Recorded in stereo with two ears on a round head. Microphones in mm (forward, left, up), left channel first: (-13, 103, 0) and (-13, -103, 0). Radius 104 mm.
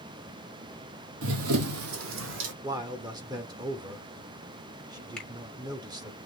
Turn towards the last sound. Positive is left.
turn(degrees=5)  # may be behind; listen again after turning